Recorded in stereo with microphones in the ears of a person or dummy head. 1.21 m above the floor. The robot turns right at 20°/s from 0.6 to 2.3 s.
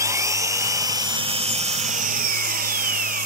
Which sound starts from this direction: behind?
An engine running, at 0.0 s.